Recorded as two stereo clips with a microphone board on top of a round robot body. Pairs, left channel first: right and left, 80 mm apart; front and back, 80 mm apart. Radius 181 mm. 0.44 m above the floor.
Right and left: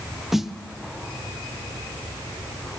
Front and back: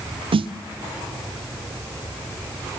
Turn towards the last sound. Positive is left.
turn(degrees=180)